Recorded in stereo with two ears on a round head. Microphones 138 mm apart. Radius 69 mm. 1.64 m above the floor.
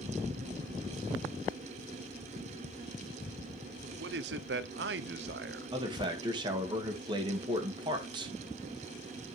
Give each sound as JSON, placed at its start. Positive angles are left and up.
{"t": 3.8, "sound": "a man speaking", "side_deg": -80, "distance_m": 0.7}
{"t": 5.7, "sound": "a man speaking", "side_deg": -30, "distance_m": 1.8}